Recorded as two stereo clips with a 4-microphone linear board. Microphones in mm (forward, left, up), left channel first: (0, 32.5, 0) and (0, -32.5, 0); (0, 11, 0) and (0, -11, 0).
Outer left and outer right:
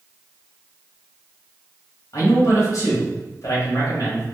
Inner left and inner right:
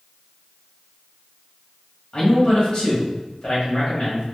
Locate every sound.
2.1 s a man speaking: 55° left (ahead or behind), 2.0 m